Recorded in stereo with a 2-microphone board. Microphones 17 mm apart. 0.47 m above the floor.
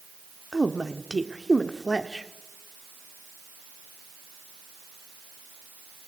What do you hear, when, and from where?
0.5 s a woman speaking: 15° right (ahead or behind), 1.0 m